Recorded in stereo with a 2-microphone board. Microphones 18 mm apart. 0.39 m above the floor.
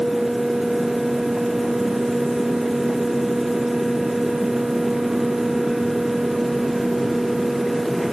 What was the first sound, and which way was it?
Only background noise.